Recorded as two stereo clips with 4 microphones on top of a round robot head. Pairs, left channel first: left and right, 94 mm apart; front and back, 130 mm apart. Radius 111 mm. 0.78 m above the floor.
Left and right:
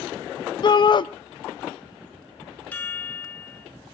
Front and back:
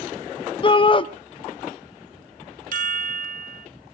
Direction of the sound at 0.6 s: 50° left.